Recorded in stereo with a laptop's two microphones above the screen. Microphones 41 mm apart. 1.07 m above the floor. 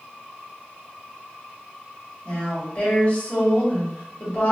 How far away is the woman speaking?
About 1.6 m.